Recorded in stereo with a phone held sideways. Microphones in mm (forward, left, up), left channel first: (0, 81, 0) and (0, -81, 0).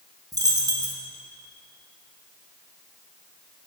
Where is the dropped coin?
25° right (ahead or behind), 0.9 m.